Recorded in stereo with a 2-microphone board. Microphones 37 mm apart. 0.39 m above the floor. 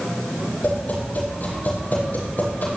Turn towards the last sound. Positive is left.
turn(degrees=50)  # may be behind; listen again after turning